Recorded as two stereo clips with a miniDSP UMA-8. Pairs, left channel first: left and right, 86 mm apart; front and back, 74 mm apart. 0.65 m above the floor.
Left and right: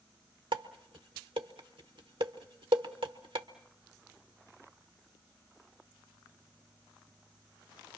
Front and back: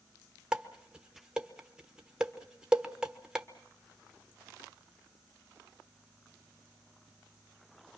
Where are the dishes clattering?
100° right, 1.3 m.